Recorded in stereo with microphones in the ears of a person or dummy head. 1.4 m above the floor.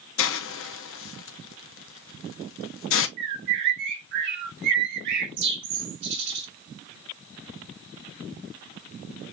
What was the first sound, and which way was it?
A hiss, 60° left (ahead or behind).